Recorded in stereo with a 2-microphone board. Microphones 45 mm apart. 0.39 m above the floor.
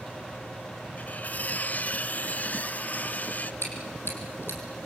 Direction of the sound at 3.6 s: 60° left (ahead or behind).